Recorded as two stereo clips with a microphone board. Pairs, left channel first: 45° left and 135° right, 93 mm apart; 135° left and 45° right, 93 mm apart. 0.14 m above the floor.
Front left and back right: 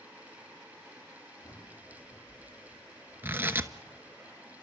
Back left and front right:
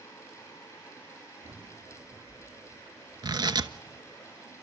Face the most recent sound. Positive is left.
turn(degrees=-70)